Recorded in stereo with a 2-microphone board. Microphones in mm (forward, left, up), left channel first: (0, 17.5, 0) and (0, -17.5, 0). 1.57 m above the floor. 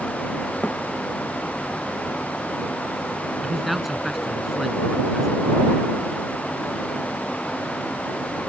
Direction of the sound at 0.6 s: 45° left (ahead or behind).